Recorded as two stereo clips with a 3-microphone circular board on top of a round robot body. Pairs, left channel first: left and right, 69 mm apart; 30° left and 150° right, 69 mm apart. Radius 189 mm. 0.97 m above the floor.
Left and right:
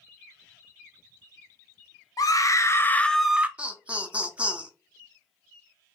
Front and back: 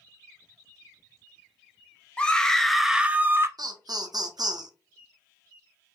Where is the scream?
105° left, 1.0 m; by 3.5 s 145° right, 0.7 m.